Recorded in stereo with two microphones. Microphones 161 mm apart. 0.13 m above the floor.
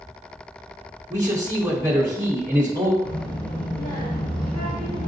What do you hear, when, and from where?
1.1 s a man speaking: 20° right (ahead or behind), 1.1 m
3.0 s a child speaking: 30° left (ahead or behind), 1.5 m